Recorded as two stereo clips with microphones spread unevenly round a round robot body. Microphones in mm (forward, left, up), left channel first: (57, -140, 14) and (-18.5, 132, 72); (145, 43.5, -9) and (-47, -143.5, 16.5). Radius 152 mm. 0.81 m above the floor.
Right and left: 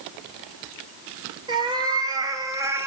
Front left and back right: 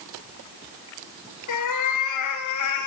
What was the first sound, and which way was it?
A cat meowing, 35° left.